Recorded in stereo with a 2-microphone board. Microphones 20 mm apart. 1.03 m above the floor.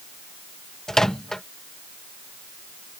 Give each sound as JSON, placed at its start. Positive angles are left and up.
{"t": 0.9, "sound": "a microwave", "side_deg": 30}